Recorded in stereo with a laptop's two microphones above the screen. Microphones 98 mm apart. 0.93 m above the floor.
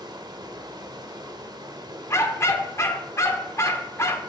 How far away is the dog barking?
About 0.7 m.